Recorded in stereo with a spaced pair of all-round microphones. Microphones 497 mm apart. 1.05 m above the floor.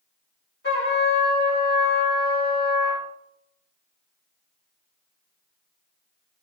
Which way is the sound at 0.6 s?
20° left (ahead or behind).